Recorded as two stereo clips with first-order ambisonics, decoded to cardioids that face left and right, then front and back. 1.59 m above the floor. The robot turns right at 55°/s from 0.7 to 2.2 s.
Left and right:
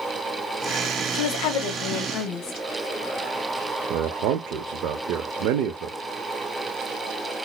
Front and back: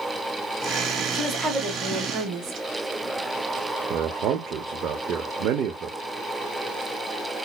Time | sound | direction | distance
1.1 | a woman speaking | 80° left | 1.5 m
3.9 | a man speaking | 130° right | 0.7 m